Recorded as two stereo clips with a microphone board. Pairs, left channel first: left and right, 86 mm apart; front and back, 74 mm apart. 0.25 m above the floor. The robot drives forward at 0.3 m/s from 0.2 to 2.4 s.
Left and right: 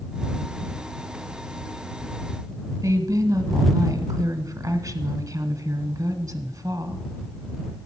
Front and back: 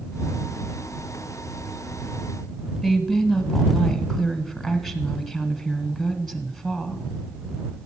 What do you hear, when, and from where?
2.8 s a woman speaking: 90° right, 1.2 m